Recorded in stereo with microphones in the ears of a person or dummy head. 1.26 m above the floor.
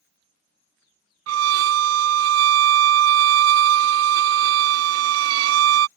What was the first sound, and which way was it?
A violin, 75° right (ahead or behind).